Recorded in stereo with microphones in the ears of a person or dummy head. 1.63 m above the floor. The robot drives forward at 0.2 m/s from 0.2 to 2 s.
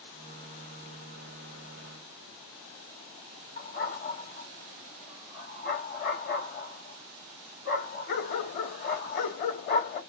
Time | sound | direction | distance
3.6 | a dog barking | 50° left (ahead or behind) | 2.0 m